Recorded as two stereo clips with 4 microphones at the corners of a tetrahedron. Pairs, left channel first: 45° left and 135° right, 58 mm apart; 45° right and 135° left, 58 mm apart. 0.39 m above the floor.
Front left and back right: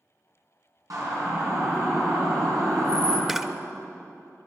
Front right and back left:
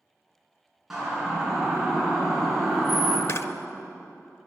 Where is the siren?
145° right, 6.5 m; by 3.2 s 140° right, 4 m.